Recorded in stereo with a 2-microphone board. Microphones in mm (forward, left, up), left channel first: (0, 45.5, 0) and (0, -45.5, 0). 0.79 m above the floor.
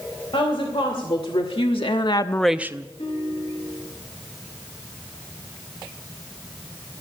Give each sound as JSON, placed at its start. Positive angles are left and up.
{"t": 0.3, "sound": "a woman speaking", "side_deg": 70, "distance_m": 3.0}
{"t": 3.0, "sound": "a guitar", "side_deg": 85, "distance_m": 9.5}